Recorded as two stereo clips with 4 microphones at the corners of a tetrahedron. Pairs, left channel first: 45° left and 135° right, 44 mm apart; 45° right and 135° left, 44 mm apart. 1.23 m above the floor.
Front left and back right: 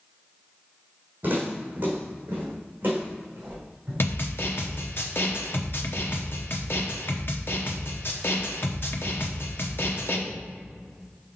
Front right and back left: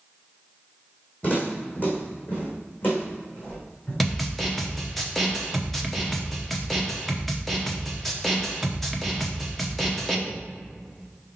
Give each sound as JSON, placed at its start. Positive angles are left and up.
{"t": 1.2, "sound": "footsteps", "azimuth_deg": -90, "distance_m": 2.5}
{"t": 4.0, "sound": "a snare drum", "azimuth_deg": 40, "distance_m": 0.9}